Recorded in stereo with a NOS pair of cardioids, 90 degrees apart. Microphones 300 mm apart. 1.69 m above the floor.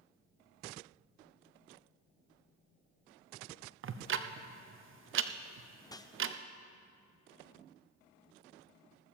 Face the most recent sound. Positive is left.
turn(degrees=10)